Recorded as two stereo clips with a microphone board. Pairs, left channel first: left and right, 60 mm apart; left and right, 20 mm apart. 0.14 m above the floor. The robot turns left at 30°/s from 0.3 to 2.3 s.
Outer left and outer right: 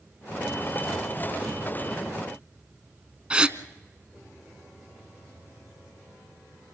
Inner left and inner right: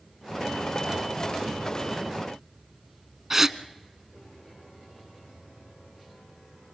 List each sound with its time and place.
3.3 s a gasp: 20° right (ahead or behind), 0.6 m